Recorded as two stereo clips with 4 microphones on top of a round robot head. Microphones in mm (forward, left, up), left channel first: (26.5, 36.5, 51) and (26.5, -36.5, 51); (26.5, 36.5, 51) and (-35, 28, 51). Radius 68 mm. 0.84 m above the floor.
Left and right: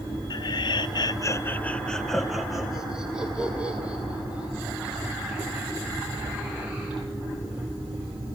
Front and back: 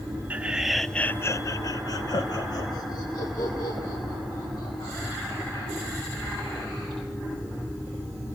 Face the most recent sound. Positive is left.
turn(degrees=-20)